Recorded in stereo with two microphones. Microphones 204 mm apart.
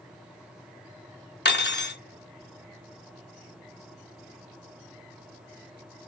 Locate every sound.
1.4 s cutlery clinking: 60° left (ahead or behind), 0.6 m